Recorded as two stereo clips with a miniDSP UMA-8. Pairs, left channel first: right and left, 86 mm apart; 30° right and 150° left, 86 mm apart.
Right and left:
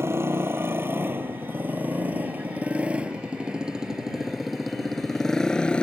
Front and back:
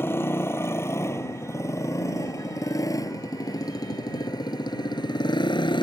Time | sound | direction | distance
0.0 | a motorcycle | 30° left | ?